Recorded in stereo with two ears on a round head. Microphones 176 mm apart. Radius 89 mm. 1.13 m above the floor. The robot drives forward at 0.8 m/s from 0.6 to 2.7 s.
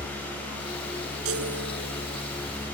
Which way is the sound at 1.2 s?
85° right.